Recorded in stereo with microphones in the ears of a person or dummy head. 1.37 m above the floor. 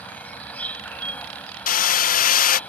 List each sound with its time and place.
0.0 s an insect: 15° left (ahead or behind)
1.7 s hammering: 45° left (ahead or behind)